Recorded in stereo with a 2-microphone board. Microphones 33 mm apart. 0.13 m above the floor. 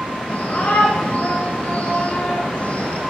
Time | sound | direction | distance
0.3 | a shout | 50° left (ahead or behind) | 8.5 m